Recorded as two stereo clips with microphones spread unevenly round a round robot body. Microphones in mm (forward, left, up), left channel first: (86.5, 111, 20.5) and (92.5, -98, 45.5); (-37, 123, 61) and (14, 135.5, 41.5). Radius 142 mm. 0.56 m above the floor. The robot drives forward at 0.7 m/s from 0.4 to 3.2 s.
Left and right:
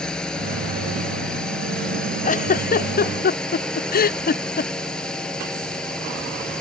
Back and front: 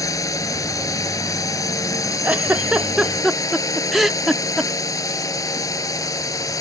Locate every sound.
0.0 s a drone: straight behind
2.2 s a giggle: 55° left; by 4.7 s 80° left